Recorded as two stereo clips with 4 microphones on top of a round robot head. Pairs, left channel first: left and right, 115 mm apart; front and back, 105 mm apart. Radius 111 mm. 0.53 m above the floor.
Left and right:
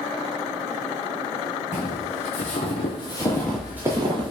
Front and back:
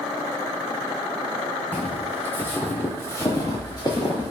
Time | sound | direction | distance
1.7 | footsteps | 80° left | 1.2 m